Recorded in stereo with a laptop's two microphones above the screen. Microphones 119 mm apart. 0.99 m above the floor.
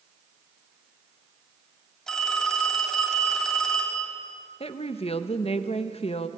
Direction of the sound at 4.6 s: 55° left (ahead or behind).